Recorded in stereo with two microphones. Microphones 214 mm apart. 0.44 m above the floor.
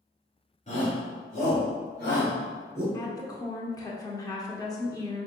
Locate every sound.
0.7 s a shout: 35° left (ahead or behind), 1.7 m; by 2.8 s 50° left (ahead or behind), 2.5 m
2.9 s a woman speaking: 15° left (ahead or behind), 0.8 m